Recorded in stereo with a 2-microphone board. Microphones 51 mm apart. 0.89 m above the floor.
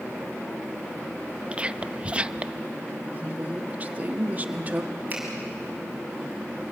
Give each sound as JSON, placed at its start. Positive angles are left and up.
{"t": 1.5, "sound": "whispering", "side_deg": -25, "distance_m": 0.6}
{"t": 3.1, "sound": "a woman speaking", "side_deg": -35, "distance_m": 1.4}
{"t": 5.1, "sound": "a finger snap", "side_deg": -35, "distance_m": 7.0}